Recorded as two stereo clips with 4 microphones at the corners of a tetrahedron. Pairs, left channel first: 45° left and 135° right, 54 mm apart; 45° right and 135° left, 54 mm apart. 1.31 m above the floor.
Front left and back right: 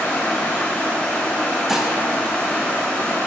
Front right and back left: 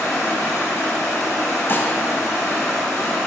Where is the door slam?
I don't hear a door slam.